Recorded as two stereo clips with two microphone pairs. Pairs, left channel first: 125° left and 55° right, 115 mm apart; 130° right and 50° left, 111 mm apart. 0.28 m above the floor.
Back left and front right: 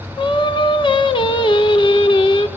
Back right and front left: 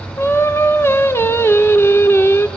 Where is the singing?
165° left, 0.6 m.